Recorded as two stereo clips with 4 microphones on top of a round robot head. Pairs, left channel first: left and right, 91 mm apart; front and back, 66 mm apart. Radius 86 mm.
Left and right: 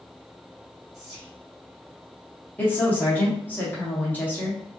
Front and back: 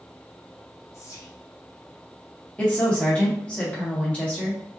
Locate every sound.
0.9 s whispering: 5° right, 1.7 m
2.6 s a woman speaking: 50° left, 1.0 m